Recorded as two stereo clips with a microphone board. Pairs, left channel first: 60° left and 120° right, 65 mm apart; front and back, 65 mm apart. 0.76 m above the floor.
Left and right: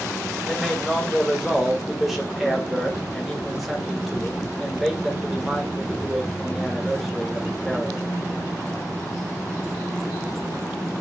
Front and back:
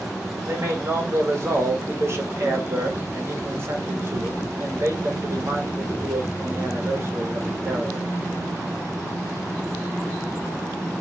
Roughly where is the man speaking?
Behind left.